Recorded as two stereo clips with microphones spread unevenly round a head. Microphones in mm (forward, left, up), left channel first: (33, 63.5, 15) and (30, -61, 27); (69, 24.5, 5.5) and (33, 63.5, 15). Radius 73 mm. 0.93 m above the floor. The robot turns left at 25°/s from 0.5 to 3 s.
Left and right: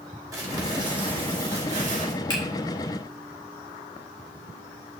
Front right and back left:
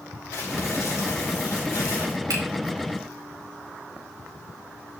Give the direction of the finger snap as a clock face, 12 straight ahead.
7 o'clock.